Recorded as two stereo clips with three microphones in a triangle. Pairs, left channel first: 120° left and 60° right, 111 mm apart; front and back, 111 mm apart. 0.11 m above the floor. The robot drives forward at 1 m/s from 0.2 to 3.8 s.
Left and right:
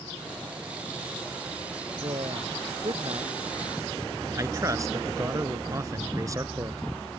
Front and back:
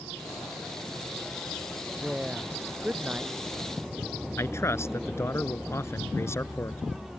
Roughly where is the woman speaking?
Right.